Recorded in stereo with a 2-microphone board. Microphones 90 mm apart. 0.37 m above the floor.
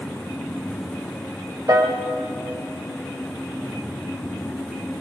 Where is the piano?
40° right (ahead or behind), 1.0 m.